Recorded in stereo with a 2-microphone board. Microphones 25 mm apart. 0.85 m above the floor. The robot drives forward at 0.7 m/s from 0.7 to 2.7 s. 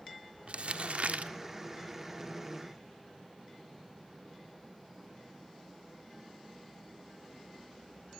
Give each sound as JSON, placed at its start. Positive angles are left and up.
{"t": 0.5, "sound": "crumpling", "side_deg": -60, "distance_m": 1.3}